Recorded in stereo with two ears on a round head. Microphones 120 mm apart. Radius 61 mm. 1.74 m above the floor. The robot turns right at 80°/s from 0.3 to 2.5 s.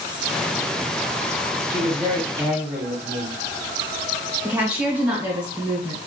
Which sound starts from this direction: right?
A man speaking, at 1.7 s.